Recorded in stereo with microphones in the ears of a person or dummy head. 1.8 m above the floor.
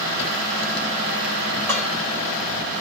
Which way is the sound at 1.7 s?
5° right (ahead or behind).